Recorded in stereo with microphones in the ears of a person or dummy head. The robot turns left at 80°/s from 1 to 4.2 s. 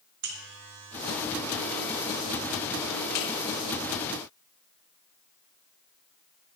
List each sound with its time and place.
0.2 s a buzzer: 55° right (ahead or behind), 1.1 m; by 3.3 s 45° left (ahead or behind), 1.1 m